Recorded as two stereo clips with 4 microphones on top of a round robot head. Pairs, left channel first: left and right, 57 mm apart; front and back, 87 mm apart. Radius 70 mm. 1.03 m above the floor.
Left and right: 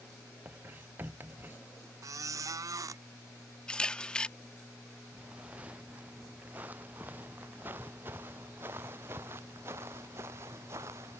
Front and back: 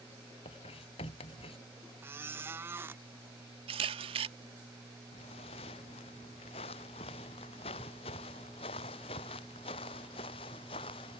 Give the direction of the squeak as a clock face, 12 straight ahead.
4 o'clock.